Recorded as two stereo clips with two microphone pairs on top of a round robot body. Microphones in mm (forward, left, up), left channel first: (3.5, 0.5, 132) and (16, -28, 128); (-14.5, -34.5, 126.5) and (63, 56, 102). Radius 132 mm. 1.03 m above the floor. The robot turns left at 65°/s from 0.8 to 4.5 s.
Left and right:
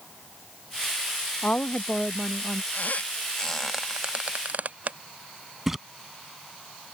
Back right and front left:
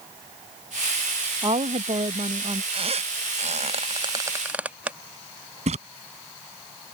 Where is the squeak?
85° left; by 5.0 s 30° right.